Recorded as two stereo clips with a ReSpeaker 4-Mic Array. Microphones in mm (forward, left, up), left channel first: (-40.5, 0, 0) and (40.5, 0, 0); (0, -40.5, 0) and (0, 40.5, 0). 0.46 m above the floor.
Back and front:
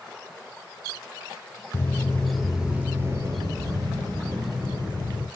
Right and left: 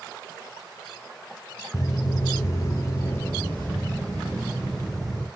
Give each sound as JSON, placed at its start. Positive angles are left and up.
{"t": 1.7, "sound": "footsteps", "azimuth_deg": -130, "distance_m": 0.7}